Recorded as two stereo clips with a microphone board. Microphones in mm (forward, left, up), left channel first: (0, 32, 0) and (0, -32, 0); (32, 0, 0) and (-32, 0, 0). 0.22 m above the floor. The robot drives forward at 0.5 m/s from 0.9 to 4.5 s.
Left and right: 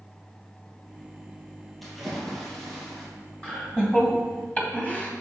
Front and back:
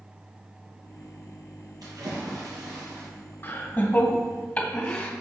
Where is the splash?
Straight behind, 2.5 m.